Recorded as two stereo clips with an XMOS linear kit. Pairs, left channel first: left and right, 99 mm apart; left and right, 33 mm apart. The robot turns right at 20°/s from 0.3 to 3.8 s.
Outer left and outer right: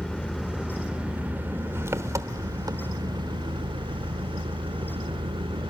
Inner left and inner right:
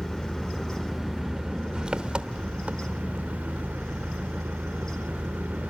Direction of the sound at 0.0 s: Straight behind.